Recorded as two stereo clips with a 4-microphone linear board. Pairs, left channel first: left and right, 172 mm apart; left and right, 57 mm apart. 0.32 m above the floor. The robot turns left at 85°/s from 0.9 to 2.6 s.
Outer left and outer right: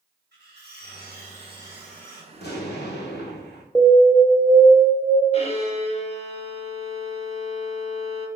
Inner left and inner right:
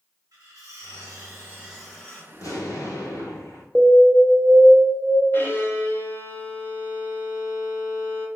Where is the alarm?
5° left (ahead or behind), 0.6 m.